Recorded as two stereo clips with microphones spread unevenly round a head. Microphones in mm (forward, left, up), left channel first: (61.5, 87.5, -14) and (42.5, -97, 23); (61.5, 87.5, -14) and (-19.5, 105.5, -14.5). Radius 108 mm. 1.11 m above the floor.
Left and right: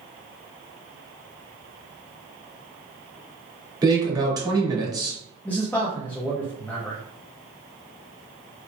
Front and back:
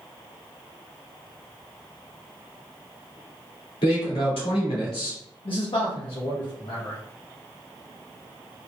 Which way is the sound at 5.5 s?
5° left.